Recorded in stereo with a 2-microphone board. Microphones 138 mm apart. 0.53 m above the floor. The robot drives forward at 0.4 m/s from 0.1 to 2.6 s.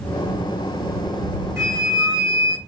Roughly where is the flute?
Centre.